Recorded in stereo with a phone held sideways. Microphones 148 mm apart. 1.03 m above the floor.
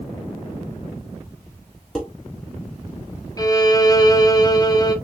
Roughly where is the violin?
Left.